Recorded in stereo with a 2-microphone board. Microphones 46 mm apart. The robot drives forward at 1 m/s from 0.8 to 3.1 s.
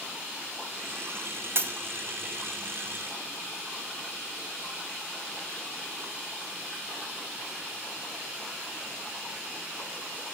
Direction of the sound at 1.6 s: 50° right (ahead or behind).